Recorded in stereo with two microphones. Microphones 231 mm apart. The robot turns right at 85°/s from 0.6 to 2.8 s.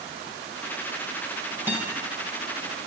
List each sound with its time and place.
1.7 s a guitar: 10° right (ahead or behind), 3 m; by 1.9 s 15° left (ahead or behind), 3 m